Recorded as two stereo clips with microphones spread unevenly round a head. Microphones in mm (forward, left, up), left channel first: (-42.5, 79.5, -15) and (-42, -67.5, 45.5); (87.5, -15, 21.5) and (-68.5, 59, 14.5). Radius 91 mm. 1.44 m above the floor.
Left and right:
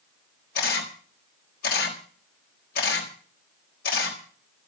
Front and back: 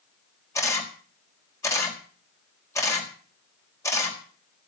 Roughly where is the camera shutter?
Ahead left.